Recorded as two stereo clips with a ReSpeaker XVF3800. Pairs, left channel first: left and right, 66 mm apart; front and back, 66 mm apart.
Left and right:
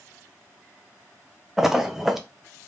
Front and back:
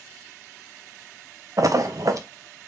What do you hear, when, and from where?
1.6 s a splash: 175° right, 0.5 m